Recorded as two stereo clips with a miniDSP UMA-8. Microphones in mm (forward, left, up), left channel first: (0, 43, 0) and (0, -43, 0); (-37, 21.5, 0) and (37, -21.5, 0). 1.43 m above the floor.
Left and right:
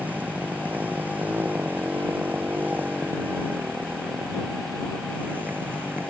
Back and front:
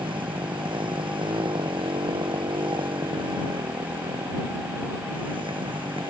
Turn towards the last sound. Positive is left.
turn(degrees=-20)